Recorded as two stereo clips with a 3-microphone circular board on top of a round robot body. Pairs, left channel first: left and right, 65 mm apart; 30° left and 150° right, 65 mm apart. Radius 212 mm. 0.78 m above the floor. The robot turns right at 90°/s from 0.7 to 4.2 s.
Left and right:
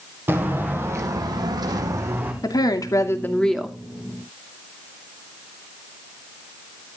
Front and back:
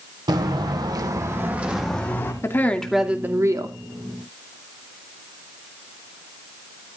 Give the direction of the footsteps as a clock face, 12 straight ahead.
5 o'clock.